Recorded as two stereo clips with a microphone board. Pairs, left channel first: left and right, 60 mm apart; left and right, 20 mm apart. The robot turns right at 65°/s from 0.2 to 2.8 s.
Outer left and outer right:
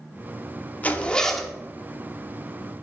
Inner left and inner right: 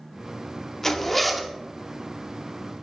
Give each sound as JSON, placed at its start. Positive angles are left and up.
{"t": 0.8, "sound": "a zipper", "azimuth_deg": 140, "distance_m": 0.8}